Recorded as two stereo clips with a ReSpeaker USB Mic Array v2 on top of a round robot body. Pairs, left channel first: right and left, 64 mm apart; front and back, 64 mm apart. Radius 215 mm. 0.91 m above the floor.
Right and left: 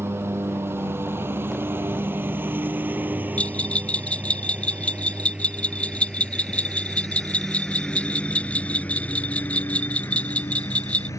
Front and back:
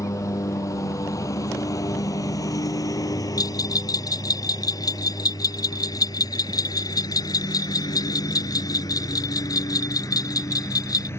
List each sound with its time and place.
0.0 s a lawn mower: 40° left; by 11.2 s 50° right
3.4 s a bell: 20° right